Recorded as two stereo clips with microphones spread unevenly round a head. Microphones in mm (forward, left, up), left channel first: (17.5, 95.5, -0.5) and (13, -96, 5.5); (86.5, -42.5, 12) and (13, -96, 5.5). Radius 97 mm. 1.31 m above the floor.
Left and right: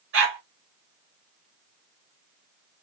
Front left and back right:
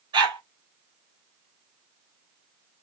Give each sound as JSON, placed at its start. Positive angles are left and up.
{"t": 0.1, "sound": "a dog barking", "azimuth_deg": -115, "distance_m": 1.4}